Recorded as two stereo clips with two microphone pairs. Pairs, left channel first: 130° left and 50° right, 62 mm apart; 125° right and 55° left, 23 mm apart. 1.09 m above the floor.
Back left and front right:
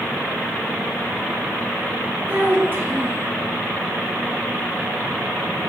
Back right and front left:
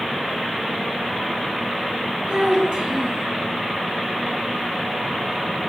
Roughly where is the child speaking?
Ahead.